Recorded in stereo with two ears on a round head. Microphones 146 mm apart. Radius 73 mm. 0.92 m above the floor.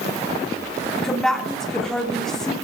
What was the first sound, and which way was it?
A woman speaking, 5° left (ahead or behind).